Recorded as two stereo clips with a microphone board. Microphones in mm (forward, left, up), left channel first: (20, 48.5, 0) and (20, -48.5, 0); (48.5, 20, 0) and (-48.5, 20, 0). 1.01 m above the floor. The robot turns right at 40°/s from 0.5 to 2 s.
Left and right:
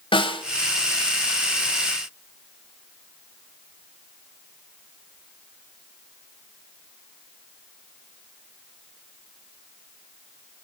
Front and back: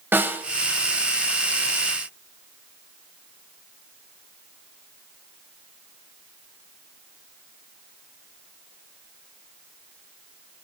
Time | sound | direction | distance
0.1 | a snare drum | 115° left | 1.6 m